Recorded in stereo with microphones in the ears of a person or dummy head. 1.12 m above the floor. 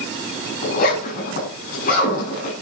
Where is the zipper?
50° left (ahead or behind), 5.5 m.